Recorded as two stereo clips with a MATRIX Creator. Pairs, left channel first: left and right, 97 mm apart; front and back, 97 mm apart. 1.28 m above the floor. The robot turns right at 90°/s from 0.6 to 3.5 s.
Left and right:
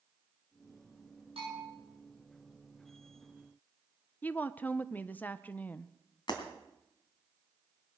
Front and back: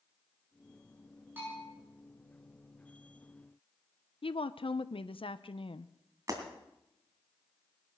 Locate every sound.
1.4 s a bell: 110° right, 8.5 m; by 1.6 s 85° right, 8.5 m
4.2 s a woman speaking: 15° left, 0.7 m
6.3 s breaking glass: 125° left, 2.5 m